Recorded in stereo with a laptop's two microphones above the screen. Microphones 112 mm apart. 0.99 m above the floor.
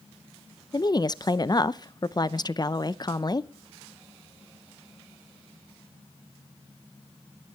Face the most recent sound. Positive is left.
turn(degrees=40)  # may be behind; listen again after turning